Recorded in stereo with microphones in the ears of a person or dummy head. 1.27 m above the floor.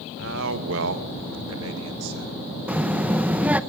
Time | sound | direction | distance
0.2 | a man speaking | 65° right (ahead or behind) | 1.6 m
2.7 | a child speaking | 5° right (ahead or behind) | 0.8 m